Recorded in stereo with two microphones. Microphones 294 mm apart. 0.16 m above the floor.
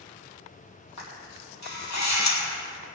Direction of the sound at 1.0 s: 65° left (ahead or behind).